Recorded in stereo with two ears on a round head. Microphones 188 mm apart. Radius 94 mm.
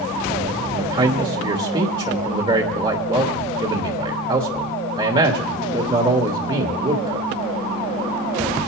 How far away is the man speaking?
About 1.1 m.